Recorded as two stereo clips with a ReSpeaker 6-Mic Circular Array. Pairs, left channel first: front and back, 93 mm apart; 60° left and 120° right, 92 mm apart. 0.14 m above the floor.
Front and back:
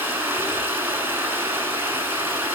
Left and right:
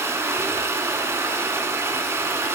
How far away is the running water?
About 1.0 m.